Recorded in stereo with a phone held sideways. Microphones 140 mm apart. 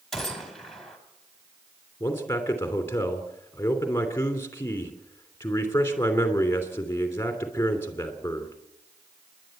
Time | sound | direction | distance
0.1 | a gunshot | centre (ahead or behind) | 3 m
2.0 | a man speaking | 20° left (ahead or behind) | 3 m